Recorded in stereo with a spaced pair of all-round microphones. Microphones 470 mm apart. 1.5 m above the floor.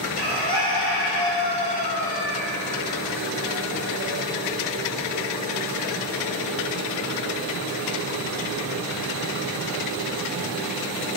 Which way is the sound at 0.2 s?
55° left (ahead or behind).